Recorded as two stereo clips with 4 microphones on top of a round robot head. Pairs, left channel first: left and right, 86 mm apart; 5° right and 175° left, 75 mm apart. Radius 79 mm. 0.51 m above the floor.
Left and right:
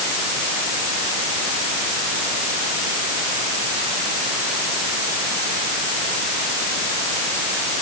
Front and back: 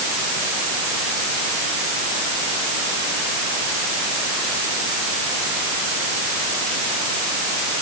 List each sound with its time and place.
Only background noise.